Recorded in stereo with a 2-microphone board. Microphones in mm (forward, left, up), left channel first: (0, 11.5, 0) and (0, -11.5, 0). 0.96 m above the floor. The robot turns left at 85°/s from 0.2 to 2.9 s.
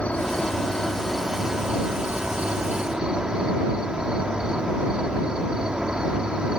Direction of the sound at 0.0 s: 90° left.